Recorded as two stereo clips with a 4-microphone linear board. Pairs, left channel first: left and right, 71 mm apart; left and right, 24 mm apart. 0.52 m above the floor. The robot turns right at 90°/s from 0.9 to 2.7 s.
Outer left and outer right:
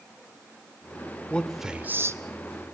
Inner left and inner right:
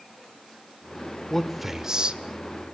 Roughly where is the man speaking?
Centre.